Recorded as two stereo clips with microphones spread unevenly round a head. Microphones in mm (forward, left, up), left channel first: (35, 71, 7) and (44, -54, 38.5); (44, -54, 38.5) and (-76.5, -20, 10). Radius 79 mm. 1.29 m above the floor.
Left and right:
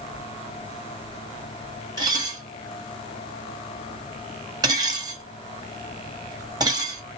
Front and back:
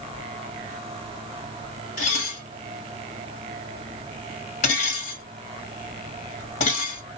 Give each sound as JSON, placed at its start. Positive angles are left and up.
{"t": 2.0, "sound": "dishes clattering", "azimuth_deg": -30, "distance_m": 1.6}